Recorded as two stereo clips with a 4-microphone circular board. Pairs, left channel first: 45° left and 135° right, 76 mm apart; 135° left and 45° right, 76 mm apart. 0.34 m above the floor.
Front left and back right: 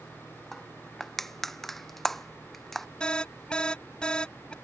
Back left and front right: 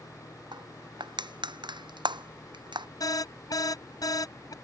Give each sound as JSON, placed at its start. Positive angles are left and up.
{"t": 0.5, "sound": "crushing", "azimuth_deg": -40}
{"t": 3.0, "sound": "an alarm", "azimuth_deg": 120}